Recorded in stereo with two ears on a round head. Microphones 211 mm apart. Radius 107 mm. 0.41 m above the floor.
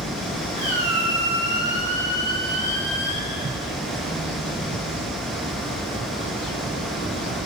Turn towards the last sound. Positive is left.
turn(degrees=-30)  # may be behind; listen again after turning